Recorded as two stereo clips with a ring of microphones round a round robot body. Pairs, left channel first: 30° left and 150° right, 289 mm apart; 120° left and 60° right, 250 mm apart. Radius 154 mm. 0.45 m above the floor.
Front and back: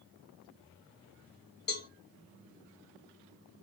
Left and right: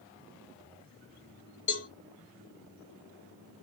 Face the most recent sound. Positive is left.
turn(degrees=85)